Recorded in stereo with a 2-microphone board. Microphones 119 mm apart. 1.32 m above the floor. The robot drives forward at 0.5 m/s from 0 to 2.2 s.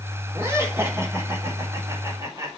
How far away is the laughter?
About 4.5 m.